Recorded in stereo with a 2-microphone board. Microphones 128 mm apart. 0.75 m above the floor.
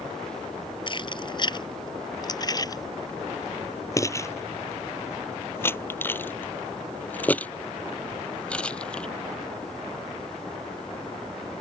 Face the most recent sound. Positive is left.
turn(degrees=5)  # may be behind; listen again after turning